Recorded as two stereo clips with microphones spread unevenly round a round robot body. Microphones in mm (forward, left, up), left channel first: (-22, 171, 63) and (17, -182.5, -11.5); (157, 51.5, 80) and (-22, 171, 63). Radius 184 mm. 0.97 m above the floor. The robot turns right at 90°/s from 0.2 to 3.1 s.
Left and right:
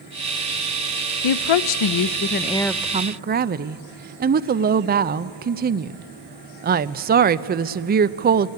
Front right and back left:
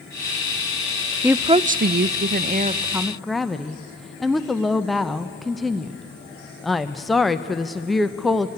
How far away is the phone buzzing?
I don't hear a phone buzzing.